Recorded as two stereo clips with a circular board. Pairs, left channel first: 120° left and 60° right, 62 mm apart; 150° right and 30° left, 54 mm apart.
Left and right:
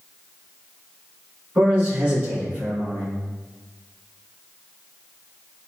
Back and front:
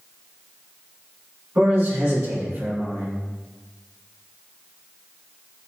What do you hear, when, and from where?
1.6 s a man speaking: 10° left, 1.7 m